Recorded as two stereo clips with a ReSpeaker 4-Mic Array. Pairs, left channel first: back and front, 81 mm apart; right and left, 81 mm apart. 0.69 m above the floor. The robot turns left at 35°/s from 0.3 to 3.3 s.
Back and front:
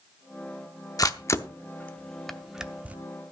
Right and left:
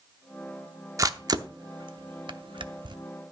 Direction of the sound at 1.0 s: 140° left.